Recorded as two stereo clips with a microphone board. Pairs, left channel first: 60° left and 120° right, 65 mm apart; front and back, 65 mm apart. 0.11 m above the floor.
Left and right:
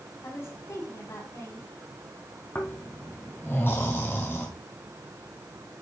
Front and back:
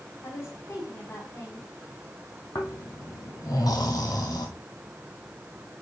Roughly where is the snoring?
Ahead.